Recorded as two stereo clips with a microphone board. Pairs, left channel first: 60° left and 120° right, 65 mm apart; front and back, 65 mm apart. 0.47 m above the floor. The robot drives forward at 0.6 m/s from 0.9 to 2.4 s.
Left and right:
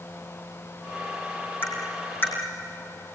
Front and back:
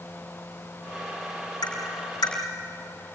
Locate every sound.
1.6 s tapping: straight ahead, 5.5 m